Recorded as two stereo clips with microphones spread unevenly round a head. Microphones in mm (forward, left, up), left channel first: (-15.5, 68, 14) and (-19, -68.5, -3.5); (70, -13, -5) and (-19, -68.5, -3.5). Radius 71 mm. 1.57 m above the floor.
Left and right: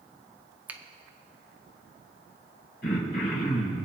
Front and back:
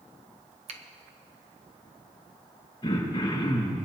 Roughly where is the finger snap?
Behind.